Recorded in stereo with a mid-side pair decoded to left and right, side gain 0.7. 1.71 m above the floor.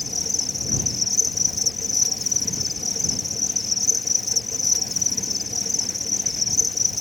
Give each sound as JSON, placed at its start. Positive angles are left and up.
{"t": 0.0, "sound": "an insect", "azimuth_deg": 15}